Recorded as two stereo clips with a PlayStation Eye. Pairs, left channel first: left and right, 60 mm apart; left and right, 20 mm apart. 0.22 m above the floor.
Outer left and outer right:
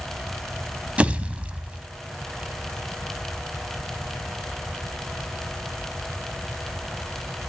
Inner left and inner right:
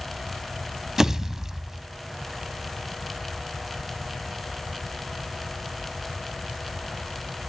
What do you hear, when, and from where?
1.0 s a pop: 20° right (ahead or behind), 0.9 m